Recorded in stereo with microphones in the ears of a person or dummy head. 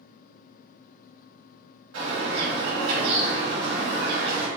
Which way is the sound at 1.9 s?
75° right (ahead or behind).